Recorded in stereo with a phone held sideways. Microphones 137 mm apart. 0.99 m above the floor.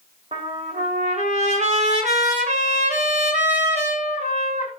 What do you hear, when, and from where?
0.3 s a trumpet: 55° right (ahead or behind), 3 m